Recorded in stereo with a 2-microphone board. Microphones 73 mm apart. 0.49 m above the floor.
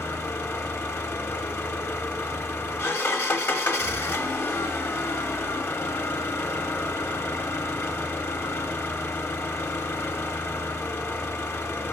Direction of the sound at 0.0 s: 35° left (ahead or behind).